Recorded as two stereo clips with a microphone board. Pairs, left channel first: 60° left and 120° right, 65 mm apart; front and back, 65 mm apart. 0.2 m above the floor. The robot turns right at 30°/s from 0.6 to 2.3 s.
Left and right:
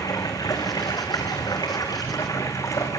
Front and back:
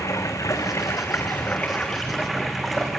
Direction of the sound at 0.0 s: 40° left.